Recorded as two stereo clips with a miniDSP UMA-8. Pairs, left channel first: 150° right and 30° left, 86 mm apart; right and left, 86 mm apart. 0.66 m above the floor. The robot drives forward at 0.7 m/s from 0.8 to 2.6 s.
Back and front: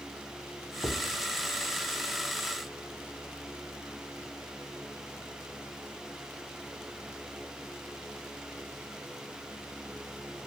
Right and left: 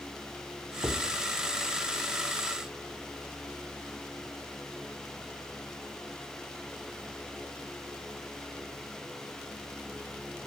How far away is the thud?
About 1.3 m.